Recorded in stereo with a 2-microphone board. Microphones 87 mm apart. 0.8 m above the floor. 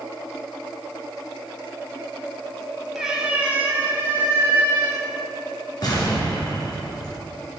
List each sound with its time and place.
3.0 s a cat meowing: 5° right (ahead or behind), 1.5 m; by 5.1 s 35° right (ahead or behind), 3 m
5.8 s an explosion: 50° left (ahead or behind), 3 m